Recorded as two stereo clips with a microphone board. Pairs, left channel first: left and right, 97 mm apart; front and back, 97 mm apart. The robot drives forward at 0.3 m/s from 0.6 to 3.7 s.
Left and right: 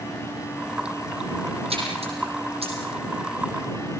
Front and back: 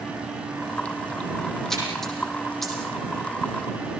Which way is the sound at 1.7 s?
85° right.